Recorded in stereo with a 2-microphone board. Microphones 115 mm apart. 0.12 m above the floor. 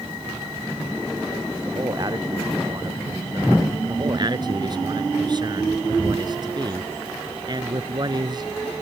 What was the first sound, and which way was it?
A man speaking, 35° right (ahead or behind).